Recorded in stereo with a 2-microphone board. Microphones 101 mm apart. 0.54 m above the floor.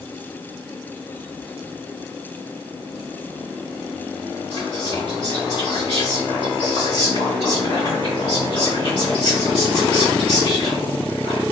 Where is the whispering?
55° left (ahead or behind), 2.5 m.